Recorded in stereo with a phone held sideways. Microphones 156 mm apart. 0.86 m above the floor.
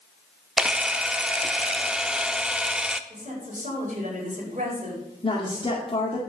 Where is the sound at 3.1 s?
55° right (ahead or behind), 4.5 m.